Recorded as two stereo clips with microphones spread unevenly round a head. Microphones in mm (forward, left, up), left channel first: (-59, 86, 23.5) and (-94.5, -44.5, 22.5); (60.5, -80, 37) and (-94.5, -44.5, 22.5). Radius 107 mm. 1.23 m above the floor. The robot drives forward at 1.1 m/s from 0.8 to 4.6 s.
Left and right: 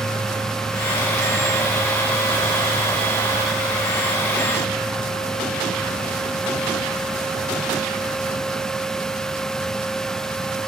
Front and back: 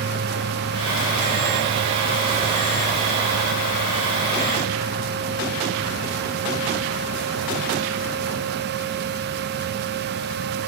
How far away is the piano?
I don't hear a piano.